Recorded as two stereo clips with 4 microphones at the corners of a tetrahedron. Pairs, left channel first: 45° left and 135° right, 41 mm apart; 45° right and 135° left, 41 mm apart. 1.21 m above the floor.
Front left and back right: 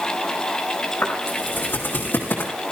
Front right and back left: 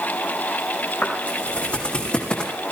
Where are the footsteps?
10° left, 5 m; by 2.5 s 20° left, 3.5 m.